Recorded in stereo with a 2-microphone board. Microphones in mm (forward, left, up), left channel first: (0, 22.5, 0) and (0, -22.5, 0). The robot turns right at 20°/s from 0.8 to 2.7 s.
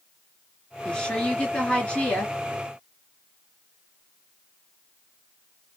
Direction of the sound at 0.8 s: 20° left (ahead or behind).